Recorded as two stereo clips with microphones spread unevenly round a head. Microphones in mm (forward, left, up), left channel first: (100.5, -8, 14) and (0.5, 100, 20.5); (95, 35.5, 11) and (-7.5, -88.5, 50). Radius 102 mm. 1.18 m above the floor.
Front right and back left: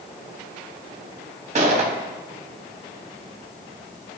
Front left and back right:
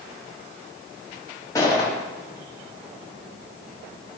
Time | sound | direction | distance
1.6 | a gunshot | 135° left | 0.8 m